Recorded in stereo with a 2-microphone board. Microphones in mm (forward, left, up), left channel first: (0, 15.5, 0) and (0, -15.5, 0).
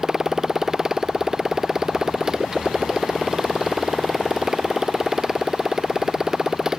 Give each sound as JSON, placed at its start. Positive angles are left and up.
{"t": 0.0, "sound": "a motorcycle", "side_deg": -20}